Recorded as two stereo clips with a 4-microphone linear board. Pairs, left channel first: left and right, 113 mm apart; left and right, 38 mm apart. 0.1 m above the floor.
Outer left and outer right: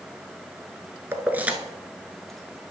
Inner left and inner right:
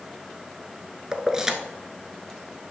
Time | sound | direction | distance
1.1 | keys jangling | 20° right (ahead or behind) | 0.8 m